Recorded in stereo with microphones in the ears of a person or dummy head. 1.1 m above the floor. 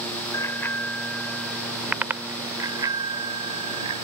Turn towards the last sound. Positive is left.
turn(degrees=-35)  # may be behind; listen again after turning